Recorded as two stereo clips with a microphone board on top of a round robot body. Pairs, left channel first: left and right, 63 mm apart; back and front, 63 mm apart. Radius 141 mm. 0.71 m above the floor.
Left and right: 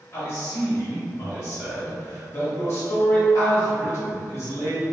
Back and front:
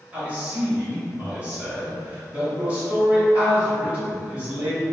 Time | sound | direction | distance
0.1 | a man speaking | 60° left | 1.6 m